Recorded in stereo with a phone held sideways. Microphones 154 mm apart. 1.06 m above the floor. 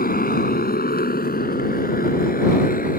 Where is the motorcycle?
75° left (ahead or behind); by 3.0 s 70° left (ahead or behind).